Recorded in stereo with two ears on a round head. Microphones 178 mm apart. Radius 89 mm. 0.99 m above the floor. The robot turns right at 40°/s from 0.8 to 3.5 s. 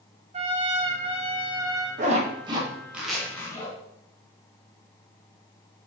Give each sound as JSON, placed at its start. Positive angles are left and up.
{"t": 0.3, "sound": "a trumpet", "azimuth_deg": -75, "distance_m": 0.6}
{"t": 2.0, "sound": "a zipper", "side_deg": -40, "distance_m": 0.8}